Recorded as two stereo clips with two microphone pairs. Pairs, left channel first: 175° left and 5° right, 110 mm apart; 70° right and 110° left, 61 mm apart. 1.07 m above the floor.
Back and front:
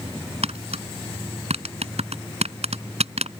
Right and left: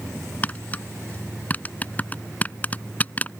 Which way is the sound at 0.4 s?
5° right.